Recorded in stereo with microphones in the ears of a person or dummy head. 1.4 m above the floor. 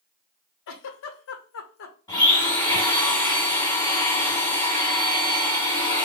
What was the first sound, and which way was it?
A giggle, 70° left (ahead or behind).